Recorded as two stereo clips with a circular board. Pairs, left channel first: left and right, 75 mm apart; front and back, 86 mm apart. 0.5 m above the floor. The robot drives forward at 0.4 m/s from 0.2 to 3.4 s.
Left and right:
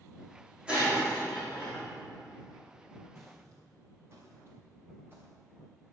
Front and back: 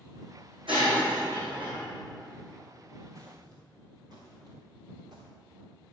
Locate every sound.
0.7 s breaking glass: 165° right, 4.5 m; by 1.9 s 170° right, 5 m
3.1 s footsteps: 135° right, 4 m; by 5.3 s 155° right, 3.5 m